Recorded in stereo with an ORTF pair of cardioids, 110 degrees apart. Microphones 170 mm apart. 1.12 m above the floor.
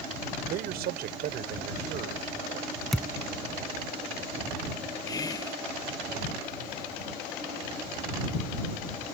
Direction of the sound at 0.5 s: 70° right.